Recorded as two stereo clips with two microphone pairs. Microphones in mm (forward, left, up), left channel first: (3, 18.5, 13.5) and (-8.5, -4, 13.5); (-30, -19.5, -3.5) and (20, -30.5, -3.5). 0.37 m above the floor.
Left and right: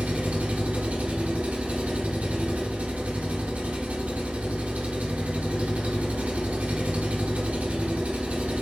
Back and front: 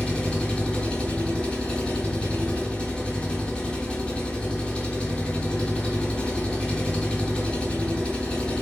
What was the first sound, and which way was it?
An engine running, 120° right.